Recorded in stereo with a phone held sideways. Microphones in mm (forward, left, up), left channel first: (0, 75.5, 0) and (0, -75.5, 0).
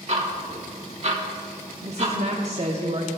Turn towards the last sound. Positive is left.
turn(degrees=-45)  # may be behind; listen again after turning